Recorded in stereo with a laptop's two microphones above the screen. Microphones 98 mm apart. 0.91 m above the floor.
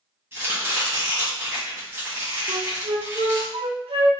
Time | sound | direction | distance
0.3 | chopping | 20° right (ahead or behind) | 1.0 m
2.5 | a flute | 80° right | 0.7 m